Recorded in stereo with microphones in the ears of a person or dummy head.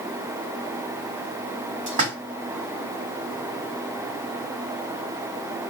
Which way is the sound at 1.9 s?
35° right (ahead or behind).